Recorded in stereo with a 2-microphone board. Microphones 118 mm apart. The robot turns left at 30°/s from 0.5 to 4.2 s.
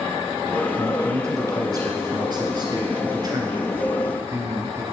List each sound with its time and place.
0.8 s a man speaking: 35° right, 1.4 m; by 4.8 s 135° right, 1.4 m